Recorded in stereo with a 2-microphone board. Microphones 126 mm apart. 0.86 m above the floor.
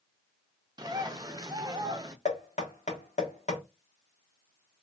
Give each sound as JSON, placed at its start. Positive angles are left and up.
{"t": 0.8, "sound": "a bird", "side_deg": -35, "distance_m": 0.5}
{"t": 2.2, "sound": "knocking", "side_deg": 75, "distance_m": 1.3}